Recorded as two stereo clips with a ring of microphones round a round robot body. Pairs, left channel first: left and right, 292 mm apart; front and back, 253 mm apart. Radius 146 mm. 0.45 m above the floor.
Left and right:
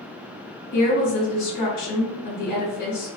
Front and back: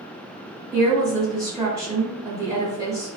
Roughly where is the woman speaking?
Left.